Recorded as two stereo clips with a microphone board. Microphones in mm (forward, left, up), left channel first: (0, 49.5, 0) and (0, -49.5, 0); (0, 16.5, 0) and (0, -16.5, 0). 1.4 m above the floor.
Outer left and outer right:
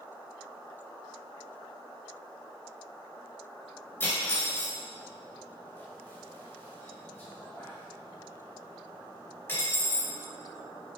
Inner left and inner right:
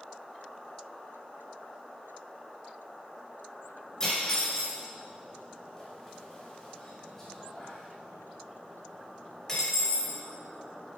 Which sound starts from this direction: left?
Cutlery clinking, at 4.0 s.